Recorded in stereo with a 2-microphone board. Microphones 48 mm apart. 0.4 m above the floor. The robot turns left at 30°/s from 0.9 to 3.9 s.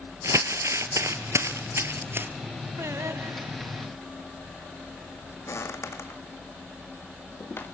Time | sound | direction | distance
0.2 | crumpling | 85° right | 1.6 m
2.8 | singing | 90° right | 0.8 m
5.5 | footsteps | 75° left (ahead or behind) | 1.2 m